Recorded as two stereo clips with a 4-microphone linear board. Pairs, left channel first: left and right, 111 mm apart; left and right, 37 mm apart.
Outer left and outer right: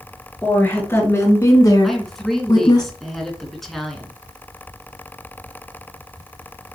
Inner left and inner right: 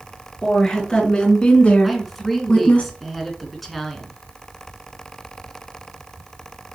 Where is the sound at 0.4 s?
20° left (ahead or behind), 3 m; by 2.8 s 35° left (ahead or behind), 2.0 m.